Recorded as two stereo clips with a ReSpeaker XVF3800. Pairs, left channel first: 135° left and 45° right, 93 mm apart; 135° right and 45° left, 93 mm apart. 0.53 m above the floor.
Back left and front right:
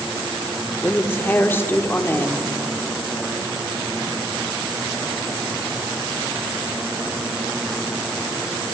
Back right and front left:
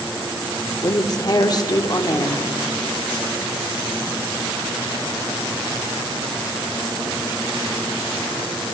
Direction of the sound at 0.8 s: 165° right.